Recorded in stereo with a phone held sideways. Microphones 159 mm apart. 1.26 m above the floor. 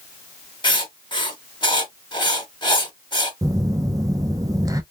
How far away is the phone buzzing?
About 0.6 m.